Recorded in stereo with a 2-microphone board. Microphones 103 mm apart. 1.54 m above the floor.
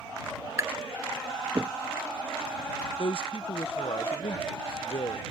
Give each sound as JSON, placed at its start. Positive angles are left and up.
{"t": 0.6, "sound": "tapping", "side_deg": -30}
{"t": 3.0, "sound": "a man speaking", "side_deg": 60}